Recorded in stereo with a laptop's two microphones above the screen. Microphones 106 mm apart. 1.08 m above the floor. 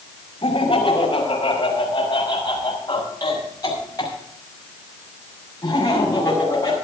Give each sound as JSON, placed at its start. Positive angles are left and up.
{"t": 0.4, "sound": "laughter", "side_deg": 55, "distance_m": 5.0}